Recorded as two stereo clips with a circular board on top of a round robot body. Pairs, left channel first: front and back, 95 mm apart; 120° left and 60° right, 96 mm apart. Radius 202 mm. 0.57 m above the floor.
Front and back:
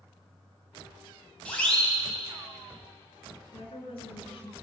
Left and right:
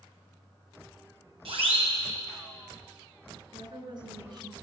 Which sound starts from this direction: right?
A siren, at 1.4 s.